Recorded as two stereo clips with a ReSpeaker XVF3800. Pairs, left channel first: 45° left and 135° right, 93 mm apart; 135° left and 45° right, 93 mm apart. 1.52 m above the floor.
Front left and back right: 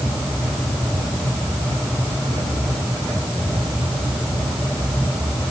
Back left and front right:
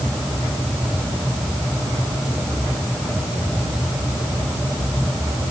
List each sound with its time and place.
Only background noise.